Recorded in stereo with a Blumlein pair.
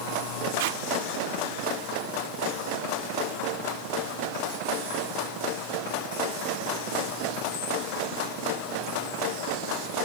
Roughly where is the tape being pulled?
Ahead right.